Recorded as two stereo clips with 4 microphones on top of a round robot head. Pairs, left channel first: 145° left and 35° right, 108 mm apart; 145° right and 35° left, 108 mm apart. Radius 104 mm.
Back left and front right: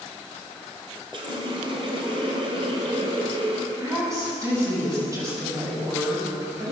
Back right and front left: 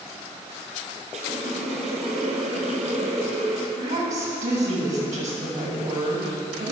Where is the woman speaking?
25° left, 6.5 m.